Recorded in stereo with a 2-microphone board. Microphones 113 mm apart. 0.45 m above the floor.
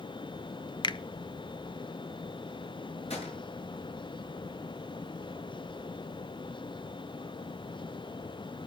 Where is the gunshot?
70° left (ahead or behind), 8.5 m.